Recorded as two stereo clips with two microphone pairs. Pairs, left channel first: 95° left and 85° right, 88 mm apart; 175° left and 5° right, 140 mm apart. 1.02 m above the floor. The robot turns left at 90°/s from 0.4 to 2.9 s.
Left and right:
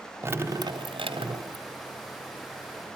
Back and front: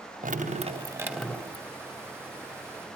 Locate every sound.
0.2 s dripping: 25° right, 3.5 m; by 1.6 s 135° right, 3.5 m